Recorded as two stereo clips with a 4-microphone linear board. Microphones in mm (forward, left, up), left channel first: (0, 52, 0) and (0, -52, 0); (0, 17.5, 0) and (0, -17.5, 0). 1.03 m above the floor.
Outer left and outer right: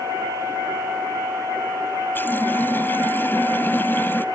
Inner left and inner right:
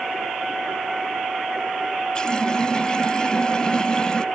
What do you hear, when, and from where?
2.1 s a running tap: 20° left (ahead or behind)